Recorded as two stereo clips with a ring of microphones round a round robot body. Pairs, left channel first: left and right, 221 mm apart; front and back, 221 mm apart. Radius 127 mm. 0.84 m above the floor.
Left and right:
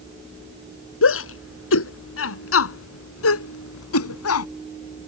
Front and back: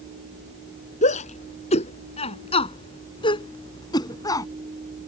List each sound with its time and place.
1.0 s a shout: 65° left; by 4.5 s 75° left